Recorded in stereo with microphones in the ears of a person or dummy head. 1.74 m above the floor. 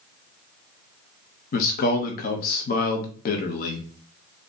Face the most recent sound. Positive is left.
turn(degrees=45)  # may be behind; listen again after turning